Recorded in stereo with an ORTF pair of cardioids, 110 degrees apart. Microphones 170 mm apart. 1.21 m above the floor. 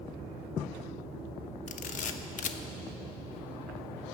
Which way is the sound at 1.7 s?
50° left.